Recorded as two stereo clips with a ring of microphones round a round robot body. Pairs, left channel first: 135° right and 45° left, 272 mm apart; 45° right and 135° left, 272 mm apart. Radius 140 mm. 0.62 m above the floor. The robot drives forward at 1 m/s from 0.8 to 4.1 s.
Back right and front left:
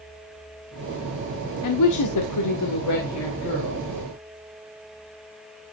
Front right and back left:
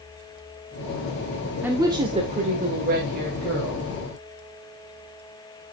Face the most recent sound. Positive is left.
turn(degrees=-170)